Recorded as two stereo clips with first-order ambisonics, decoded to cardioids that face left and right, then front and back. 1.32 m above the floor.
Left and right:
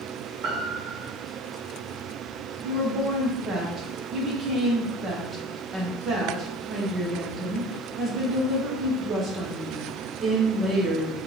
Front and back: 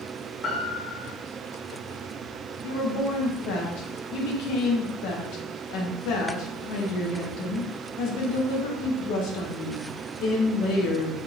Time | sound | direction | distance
0.4 | a piano | 60° right | 1.4 m
2.6 | a woman speaking | 25° right | 1.1 m